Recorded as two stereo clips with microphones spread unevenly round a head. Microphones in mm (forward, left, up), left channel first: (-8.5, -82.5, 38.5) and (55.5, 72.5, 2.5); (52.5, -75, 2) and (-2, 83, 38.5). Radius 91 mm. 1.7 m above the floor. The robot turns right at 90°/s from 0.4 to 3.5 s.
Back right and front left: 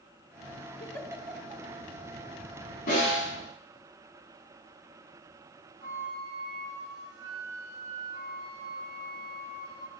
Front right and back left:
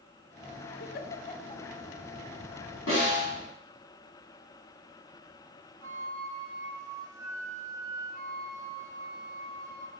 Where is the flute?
55° left, 2.5 m.